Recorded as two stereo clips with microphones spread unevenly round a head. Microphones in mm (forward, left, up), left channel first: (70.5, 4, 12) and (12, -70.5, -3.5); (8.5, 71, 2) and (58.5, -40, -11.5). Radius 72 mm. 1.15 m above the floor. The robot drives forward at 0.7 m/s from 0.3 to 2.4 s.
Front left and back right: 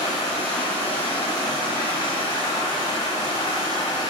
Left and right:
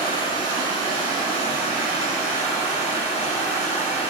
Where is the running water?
75° left, 3.5 m; by 4.1 s 100° left, 3.5 m.